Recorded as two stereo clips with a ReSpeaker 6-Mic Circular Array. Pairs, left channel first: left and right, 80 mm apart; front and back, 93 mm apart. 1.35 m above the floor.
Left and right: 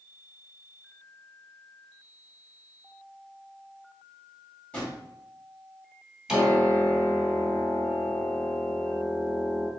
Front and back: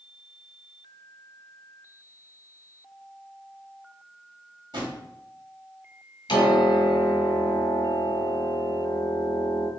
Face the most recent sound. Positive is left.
turn(degrees=-10)